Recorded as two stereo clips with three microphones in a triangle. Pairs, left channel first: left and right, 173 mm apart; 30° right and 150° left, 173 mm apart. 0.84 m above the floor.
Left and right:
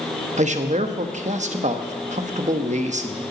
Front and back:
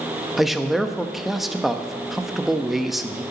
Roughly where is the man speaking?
Behind right.